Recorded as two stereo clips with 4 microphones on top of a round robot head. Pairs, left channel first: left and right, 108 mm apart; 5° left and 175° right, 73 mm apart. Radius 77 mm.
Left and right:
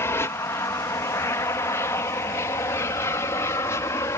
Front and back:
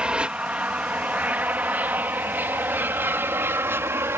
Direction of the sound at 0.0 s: 125° left.